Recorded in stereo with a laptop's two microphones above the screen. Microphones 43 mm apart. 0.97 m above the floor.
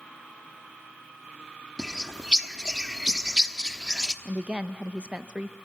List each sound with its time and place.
1.8 s a bird: 15° right (ahead or behind), 1.0 m
4.2 s a woman speaking: 25° right (ahead or behind), 0.6 m